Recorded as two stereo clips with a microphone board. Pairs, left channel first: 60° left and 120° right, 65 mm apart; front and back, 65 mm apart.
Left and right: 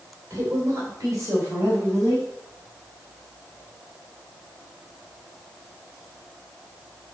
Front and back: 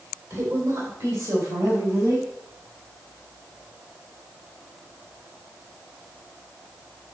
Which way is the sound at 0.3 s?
165° right.